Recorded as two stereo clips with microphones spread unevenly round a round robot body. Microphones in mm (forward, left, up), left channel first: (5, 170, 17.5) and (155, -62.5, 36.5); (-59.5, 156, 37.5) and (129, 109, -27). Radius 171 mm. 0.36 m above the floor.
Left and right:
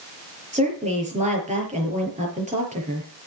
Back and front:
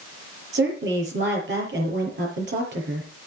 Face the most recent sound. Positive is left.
turn(degrees=10)